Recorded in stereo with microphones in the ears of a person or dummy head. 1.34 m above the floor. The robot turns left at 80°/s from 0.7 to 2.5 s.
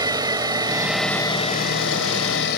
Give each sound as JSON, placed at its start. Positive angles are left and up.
{"t": 0.0, "sound": "an engine running", "azimuth_deg": -160}